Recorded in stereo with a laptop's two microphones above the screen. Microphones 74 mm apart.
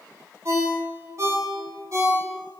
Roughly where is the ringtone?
Right.